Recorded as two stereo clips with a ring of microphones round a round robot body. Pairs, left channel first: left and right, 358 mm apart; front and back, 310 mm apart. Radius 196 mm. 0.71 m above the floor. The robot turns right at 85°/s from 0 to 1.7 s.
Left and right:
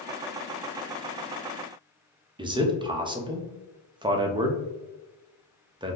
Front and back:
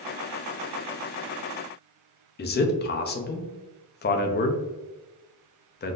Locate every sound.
2.4 s a man speaking: 20° right, 0.6 m